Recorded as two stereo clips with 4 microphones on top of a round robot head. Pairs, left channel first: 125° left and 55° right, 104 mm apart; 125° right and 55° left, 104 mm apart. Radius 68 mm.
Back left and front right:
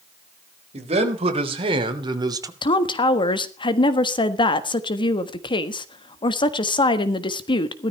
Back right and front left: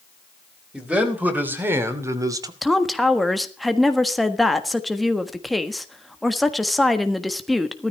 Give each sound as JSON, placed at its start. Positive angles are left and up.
{"t": 0.7, "sound": "a man speaking", "azimuth_deg": -25, "distance_m": 4.0}
{"t": 2.6, "sound": "a woman speaking", "azimuth_deg": 145, "distance_m": 1.5}